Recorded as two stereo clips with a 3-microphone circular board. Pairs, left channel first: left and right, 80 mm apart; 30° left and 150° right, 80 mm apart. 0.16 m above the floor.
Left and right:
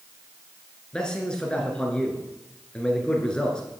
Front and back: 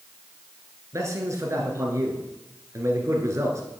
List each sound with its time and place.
0.9 s a man speaking: 170° left, 1.9 m